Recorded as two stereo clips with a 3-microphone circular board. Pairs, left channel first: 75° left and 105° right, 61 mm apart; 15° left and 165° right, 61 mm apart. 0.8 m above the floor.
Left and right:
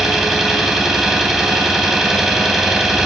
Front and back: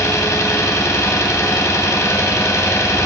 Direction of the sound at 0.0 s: 20° right.